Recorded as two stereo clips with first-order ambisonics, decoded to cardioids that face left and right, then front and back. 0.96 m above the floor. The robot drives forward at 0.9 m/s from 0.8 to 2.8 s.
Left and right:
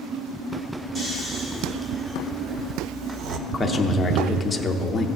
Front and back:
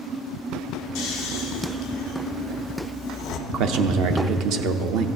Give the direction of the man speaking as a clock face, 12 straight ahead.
6 o'clock.